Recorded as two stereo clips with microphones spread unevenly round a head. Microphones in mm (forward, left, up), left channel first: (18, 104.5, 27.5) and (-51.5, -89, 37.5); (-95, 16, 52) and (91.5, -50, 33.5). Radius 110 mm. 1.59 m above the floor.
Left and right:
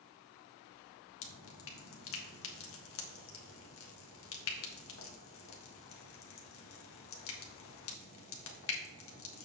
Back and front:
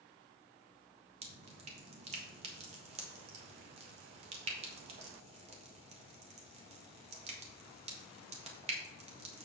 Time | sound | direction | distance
1.2 | dripping | 40° left | 1.4 m